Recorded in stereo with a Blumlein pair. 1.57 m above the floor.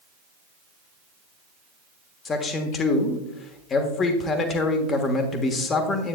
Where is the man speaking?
25° left, 1.3 m.